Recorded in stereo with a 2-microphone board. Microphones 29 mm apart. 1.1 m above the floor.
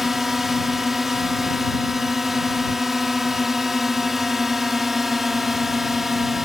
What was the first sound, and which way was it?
A drone, 10° right (ahead or behind).